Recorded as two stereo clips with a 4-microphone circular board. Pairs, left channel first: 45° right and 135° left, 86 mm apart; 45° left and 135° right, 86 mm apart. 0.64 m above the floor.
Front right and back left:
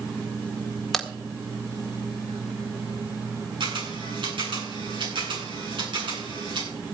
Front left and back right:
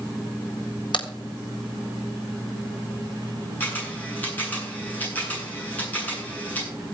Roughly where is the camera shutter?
Behind left.